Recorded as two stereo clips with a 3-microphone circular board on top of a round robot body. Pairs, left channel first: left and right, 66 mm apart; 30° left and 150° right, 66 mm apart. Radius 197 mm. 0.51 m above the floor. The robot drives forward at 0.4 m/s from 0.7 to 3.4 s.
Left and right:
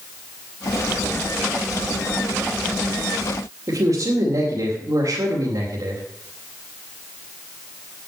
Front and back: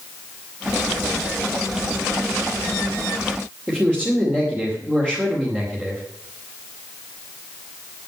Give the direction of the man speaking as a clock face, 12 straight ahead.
3 o'clock.